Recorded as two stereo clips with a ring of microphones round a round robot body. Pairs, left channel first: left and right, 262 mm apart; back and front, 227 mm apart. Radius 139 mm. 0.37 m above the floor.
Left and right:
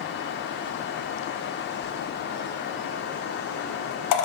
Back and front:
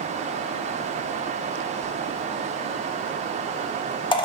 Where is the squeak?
110° left, 0.5 m.